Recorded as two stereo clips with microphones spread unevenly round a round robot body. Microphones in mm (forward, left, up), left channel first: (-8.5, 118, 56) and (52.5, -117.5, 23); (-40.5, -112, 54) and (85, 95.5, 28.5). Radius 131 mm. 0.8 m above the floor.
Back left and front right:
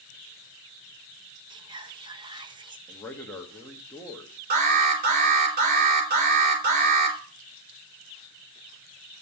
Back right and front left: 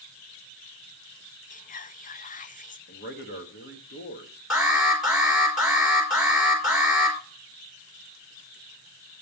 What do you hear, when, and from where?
1.5 s whispering: 95° right, 0.8 m
2.9 s a man speaking: 170° right, 1.3 m
4.5 s an alarm: 25° right, 3 m